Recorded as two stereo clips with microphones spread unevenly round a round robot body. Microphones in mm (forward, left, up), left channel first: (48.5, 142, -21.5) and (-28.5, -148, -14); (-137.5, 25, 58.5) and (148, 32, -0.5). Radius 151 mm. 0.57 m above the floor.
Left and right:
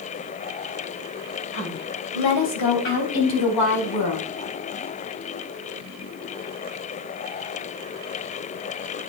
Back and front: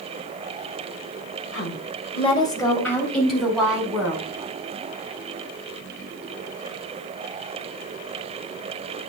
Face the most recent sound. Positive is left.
turn(degrees=85)